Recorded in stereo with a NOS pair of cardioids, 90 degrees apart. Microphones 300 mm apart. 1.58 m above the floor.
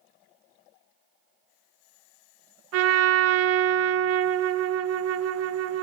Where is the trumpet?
55° right, 0.6 m.